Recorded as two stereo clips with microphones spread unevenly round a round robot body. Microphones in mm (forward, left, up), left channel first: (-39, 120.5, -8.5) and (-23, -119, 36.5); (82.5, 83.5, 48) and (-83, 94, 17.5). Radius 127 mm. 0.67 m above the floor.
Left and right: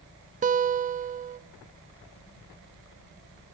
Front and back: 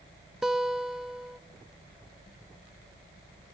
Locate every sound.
0.4 s a guitar: 125° right, 0.6 m